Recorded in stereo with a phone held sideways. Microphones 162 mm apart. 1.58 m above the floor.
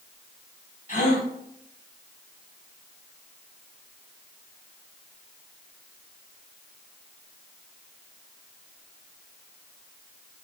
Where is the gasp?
50° left (ahead or behind), 3.5 m.